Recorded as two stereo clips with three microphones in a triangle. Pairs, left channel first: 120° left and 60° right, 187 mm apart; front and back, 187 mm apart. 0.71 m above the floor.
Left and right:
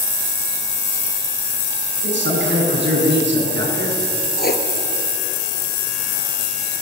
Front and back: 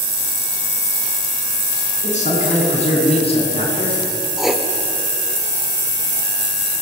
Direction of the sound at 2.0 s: 50° right.